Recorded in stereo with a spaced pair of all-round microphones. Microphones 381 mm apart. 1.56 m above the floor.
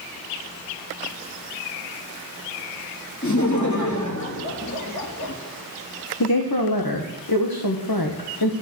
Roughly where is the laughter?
Left.